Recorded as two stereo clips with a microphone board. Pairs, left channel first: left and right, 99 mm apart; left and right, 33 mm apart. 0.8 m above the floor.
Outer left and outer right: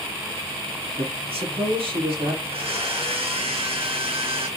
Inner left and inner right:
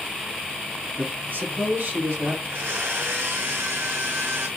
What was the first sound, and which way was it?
A man speaking, 75° right (ahead or behind).